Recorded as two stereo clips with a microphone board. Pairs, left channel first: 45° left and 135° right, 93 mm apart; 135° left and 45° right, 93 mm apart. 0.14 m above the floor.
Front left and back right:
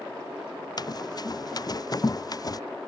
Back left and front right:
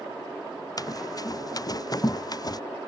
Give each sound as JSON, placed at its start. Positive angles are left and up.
{"t": 0.8, "sound": "running footsteps", "azimuth_deg": 90}